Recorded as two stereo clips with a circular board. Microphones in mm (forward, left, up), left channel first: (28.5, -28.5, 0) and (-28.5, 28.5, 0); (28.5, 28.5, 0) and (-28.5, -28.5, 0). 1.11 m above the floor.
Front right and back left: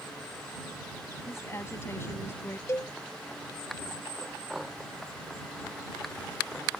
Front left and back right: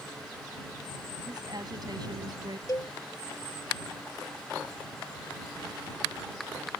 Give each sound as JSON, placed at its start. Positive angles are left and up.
{"t": 1.3, "sound": "a woman speaking", "azimuth_deg": -100}
{"t": 2.7, "sound": "a cowbell", "azimuth_deg": 10}